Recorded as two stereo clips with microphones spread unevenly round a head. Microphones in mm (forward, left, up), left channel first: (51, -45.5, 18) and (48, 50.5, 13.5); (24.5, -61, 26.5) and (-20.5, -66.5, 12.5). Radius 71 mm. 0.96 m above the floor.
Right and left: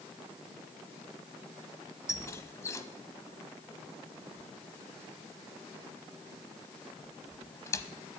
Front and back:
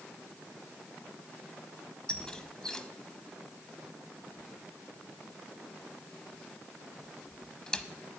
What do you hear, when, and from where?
2.1 s a squeak: 45° right, 1.1 m